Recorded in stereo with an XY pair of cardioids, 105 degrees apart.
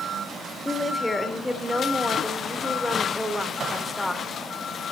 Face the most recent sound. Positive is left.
turn(degrees=10)